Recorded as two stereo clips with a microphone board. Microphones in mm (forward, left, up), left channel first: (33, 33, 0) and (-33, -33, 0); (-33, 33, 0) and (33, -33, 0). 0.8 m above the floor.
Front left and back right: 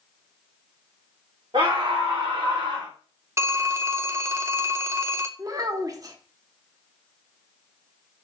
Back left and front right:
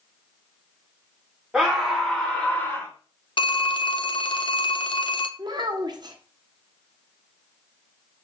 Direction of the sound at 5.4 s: 85° right.